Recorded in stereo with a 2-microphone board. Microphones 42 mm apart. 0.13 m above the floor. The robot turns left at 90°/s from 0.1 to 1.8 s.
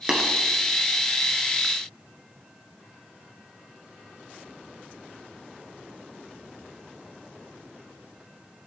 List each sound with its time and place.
0.1 s tapping: 25° right (ahead or behind), 1.9 m; by 0.2 s 15° right (ahead or behind), 1.9 m